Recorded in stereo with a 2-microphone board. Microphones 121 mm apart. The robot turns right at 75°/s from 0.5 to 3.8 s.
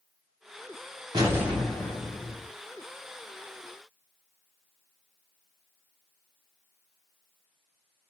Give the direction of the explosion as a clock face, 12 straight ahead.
1 o'clock.